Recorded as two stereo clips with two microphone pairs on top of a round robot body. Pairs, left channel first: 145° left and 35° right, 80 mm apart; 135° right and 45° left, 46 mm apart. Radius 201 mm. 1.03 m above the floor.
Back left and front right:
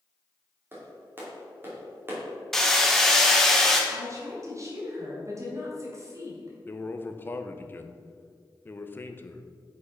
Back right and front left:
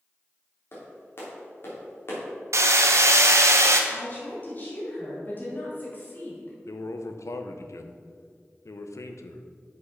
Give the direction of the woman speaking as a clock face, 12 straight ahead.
3 o'clock.